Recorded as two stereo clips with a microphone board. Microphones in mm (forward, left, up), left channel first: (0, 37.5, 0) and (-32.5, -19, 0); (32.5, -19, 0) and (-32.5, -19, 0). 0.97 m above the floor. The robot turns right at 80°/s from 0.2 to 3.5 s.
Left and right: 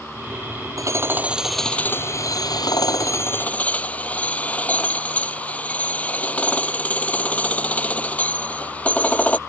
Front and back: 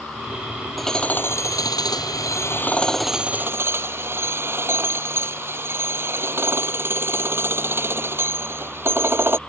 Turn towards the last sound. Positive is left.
turn(degrees=130)